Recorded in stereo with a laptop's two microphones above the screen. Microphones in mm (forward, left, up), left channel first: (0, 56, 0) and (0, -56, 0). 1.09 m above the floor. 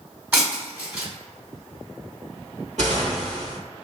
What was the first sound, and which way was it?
Breaking glass, 15° right (ahead or behind).